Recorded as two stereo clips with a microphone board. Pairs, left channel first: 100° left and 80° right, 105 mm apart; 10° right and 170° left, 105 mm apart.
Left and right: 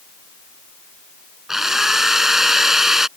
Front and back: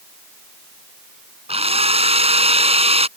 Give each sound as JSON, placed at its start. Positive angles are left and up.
{"t": 1.5, "sound": "a drill", "azimuth_deg": -165}